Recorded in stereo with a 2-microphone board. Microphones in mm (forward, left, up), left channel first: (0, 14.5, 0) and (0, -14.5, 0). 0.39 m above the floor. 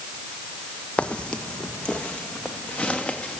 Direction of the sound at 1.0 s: 45° left (ahead or behind).